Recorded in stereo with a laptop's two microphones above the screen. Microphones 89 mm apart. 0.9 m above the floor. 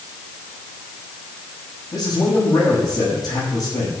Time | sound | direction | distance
1.9 | a man speaking | 50° left (ahead or behind) | 5 m